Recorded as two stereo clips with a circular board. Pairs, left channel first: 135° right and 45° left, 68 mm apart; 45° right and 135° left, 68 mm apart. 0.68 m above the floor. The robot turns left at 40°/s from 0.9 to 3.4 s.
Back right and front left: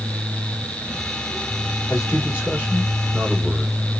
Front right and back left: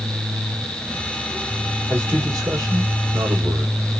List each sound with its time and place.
1.9 s a man speaking: straight behind, 1.8 m; by 3.8 s 120° left, 1.8 m